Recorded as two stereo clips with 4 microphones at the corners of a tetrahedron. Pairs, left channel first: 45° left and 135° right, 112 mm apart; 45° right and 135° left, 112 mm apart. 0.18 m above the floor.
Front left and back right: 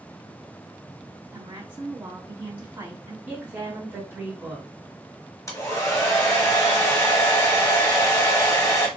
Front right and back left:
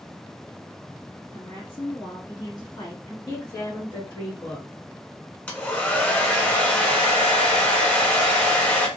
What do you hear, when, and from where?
1.3 s a woman speaking: 70° right, 2 m
3.3 s a woman speaking: 70° right, 2.0 m
5.5 s a hair dryer: 20° left, 0.9 m